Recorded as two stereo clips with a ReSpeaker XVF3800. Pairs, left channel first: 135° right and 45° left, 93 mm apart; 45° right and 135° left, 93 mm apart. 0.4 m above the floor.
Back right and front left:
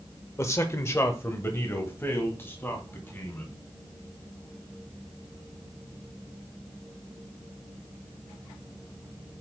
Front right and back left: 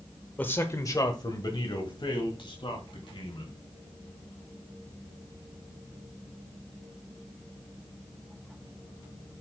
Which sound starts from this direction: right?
A man speaking, at 0.4 s.